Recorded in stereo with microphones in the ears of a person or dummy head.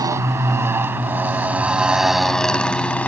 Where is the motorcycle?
25° right (ahead or behind); by 3.1 s centre (ahead or behind).